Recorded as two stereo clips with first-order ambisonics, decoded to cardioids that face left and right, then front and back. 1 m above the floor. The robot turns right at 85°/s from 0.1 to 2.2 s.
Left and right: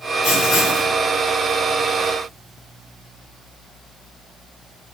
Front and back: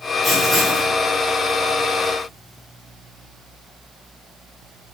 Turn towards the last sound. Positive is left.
turn(degrees=-100)